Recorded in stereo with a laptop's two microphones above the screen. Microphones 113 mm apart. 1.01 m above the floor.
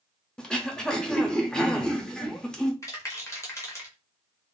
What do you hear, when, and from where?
0.4 s throat clearing: 5° left (ahead or behind), 0.5 m
2.8 s a rattle: 25° left (ahead or behind), 0.8 m